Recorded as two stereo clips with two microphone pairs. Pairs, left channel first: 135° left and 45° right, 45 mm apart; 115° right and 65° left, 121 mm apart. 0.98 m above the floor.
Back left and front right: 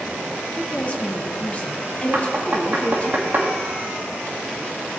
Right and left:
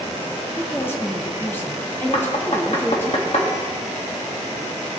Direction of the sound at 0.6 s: Straight behind.